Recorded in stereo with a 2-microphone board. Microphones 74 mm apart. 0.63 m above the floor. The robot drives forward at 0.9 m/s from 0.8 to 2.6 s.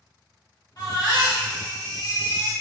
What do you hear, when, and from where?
0.8 s a baby crying: 55° left (ahead or behind), 1.9 m; by 2.5 s 60° left (ahead or behind), 1.8 m